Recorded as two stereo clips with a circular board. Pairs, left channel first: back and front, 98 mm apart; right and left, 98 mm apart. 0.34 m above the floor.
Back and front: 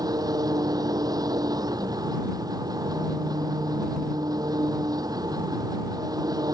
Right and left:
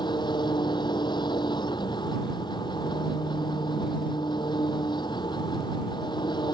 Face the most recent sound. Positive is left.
turn(degrees=-50)